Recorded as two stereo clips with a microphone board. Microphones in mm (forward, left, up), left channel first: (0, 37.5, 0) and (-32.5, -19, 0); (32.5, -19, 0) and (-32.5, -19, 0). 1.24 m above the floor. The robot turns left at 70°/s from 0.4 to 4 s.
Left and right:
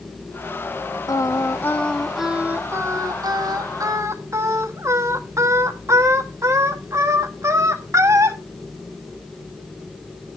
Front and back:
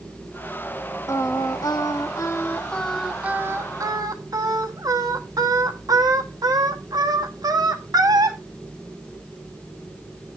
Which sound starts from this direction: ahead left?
Singing, at 1.1 s.